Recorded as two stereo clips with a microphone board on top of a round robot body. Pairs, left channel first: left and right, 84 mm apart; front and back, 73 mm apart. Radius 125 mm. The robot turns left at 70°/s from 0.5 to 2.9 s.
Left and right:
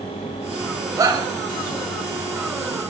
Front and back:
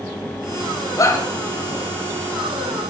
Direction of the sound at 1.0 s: 40° right.